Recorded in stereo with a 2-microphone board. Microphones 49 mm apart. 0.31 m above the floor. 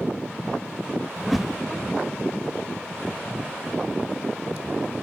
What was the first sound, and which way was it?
A whoosh, 5° right (ahead or behind).